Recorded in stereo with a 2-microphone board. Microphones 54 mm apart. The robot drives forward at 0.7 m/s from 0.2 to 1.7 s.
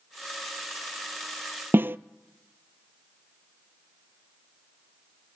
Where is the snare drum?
45° right (ahead or behind), 0.5 m.